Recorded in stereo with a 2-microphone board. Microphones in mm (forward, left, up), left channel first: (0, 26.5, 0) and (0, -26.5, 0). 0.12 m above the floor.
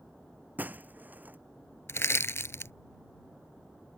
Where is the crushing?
55° left (ahead or behind).